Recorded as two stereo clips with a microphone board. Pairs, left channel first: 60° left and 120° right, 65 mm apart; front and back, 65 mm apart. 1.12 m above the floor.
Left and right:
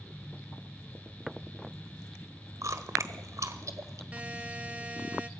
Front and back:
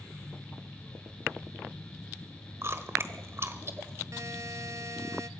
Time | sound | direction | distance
2.6 | chewing | 140° right | 1.3 m
4.1 | a buzzer | 175° left | 0.8 m